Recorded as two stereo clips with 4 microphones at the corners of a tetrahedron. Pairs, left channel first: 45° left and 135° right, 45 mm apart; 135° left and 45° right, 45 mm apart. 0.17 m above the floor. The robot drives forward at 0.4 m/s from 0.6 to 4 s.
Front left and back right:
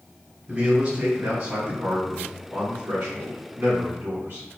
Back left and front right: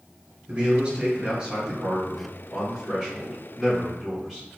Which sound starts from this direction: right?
A man speaking, at 0.5 s.